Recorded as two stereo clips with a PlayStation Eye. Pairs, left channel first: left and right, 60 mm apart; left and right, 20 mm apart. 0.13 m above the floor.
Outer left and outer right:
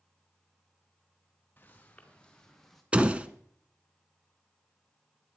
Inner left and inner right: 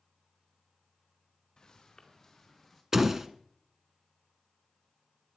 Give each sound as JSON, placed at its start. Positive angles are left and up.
{"t": 1.6, "sound": "footsteps", "side_deg": 30, "distance_m": 3.5}
{"t": 2.9, "sound": "a door slam", "side_deg": -20, "distance_m": 0.9}